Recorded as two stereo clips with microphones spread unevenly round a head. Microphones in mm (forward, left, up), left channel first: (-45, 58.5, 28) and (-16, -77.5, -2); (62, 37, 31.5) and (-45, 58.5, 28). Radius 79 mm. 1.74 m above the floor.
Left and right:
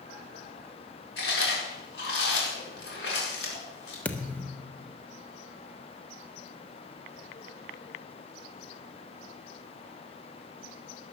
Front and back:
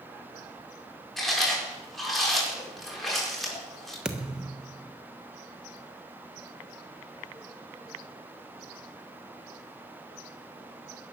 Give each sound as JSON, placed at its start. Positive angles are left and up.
{"t": 1.2, "sound": "chewing", "azimuth_deg": 75, "distance_m": 7.0}
{"t": 4.0, "sound": "a thud", "azimuth_deg": 95, "distance_m": 1.2}